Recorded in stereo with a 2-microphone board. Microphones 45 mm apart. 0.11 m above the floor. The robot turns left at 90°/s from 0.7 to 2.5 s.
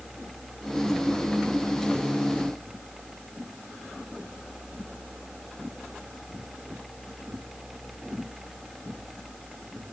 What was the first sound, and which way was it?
Only background noise.